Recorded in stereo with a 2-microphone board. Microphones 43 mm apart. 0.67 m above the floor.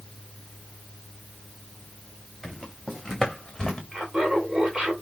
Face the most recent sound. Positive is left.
turn(degrees=-10)  # may be behind; listen again after turning